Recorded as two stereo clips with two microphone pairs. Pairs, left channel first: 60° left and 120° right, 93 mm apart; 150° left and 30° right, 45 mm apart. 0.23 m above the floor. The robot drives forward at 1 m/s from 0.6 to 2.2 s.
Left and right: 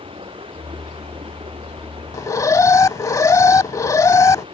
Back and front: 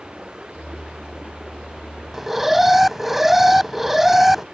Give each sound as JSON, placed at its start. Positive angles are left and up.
{"t": 0.0, "sound": "running water", "azimuth_deg": -105}
{"t": 2.1, "sound": "an alarm", "azimuth_deg": 40}